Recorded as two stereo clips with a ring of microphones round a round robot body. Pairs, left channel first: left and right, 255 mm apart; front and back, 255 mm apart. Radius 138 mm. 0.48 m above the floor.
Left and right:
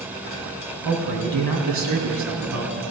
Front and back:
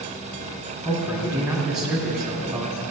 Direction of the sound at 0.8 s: 90° right.